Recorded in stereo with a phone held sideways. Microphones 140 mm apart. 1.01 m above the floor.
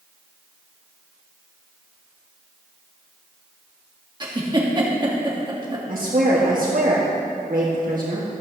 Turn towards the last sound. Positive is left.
turn(degrees=-70)  # may be behind; listen again after turning